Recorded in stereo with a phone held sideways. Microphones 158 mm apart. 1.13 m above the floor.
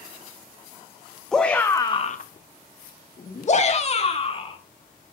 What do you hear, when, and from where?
1.3 s a shout: 5° left (ahead or behind), 1.4 m; by 4.6 s 35° left (ahead or behind), 3 m